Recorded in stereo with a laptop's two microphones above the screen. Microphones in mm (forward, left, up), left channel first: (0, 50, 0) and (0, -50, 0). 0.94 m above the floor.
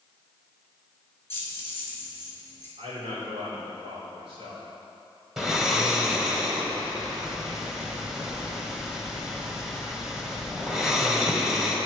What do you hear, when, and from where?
1.3 s keys jangling: 25° left (ahead or behind), 1.5 m
2.8 s a man speaking: 80° right, 2.5 m
5.4 s snoring: 5° right (ahead or behind), 1.4 m